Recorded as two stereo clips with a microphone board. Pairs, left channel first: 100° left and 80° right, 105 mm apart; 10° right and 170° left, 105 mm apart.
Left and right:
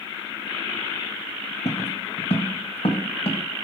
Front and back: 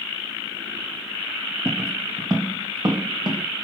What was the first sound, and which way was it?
Footsteps, 105° left.